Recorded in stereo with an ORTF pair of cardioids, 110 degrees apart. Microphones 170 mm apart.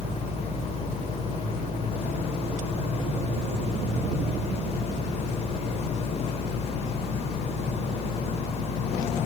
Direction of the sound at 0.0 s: 40° left.